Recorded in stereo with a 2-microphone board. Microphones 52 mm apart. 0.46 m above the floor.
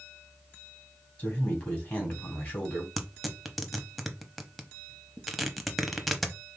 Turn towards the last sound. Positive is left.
turn(degrees=0)  # may be behind; listen again after turning